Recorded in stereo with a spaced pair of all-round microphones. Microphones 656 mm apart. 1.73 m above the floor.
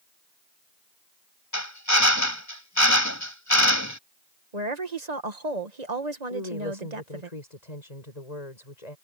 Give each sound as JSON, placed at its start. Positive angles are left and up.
{"t": 1.5, "sound": "a drill", "side_deg": 25}
{"t": 4.5, "sound": "a woman speaking", "side_deg": -80}
{"t": 6.3, "sound": "a woman speaking", "side_deg": 80}